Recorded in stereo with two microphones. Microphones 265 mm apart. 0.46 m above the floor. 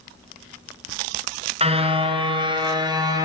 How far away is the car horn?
About 2.5 m.